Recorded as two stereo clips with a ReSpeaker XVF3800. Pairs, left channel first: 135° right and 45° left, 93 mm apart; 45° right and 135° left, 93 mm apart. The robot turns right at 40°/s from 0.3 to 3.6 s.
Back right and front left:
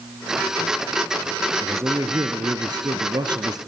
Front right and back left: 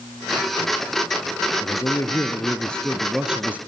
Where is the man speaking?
10° right, 1.8 m; by 3.6 s 65° left, 1.8 m.